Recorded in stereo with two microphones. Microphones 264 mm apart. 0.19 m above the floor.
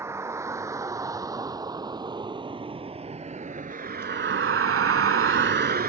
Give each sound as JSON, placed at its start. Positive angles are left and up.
{"t": 0.0, "sound": "a vehicle", "side_deg": -10}